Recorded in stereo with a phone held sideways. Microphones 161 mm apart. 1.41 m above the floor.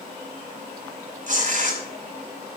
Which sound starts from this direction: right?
Tearing paper, at 1.3 s.